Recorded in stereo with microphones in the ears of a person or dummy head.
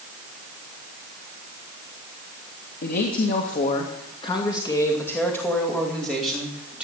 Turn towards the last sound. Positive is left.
turn(degrees=-5)  # may be behind; listen again after turning